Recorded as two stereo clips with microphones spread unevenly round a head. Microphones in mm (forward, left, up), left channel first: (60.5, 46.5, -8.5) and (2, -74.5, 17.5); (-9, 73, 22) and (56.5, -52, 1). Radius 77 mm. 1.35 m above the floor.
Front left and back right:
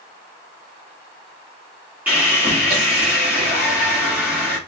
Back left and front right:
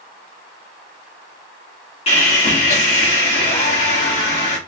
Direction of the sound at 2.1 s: 170° left.